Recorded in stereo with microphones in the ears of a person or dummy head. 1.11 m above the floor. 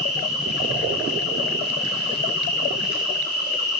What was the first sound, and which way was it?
An insect, 50° left (ahead or behind).